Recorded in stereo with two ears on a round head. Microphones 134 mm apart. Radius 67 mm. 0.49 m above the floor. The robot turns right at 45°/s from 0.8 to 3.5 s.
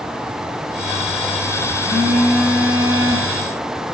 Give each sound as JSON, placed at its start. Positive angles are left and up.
{"t": 1.8, "sound": "a phone buzzing", "azimuth_deg": -20, "distance_m": 6.5}